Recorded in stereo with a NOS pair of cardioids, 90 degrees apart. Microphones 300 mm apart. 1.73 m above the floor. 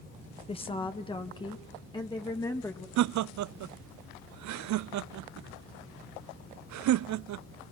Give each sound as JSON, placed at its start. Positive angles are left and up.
{"t": 0.5, "sound": "a woman speaking", "azimuth_deg": 20, "distance_m": 1.5}
{"t": 3.0, "sound": "laughter", "azimuth_deg": -65, "distance_m": 0.7}